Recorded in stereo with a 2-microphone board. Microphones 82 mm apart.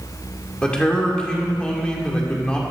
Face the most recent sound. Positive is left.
turn(degrees=10)  # may be behind; listen again after turning